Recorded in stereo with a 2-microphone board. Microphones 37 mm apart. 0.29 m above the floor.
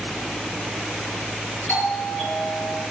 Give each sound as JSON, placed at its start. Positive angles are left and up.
{"t": 1.7, "sound": "a doorbell", "side_deg": 75, "distance_m": 8.0}